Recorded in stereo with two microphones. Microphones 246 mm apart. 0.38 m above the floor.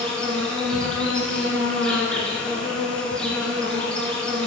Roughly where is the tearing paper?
I don't hear tearing paper.